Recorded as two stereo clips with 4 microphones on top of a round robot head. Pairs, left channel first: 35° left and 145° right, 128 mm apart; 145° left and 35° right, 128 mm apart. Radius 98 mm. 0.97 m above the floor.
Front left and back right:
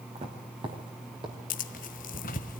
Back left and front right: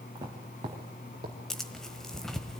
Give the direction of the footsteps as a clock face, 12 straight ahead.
3 o'clock.